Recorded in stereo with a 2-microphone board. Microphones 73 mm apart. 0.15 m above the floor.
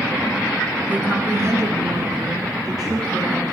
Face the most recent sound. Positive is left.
turn(degrees=-60)  # may be behind; listen again after turning